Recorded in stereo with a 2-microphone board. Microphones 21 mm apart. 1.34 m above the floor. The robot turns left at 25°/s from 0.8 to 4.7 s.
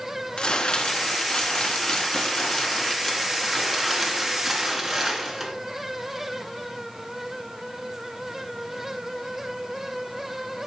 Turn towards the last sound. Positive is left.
turn(degrees=-5)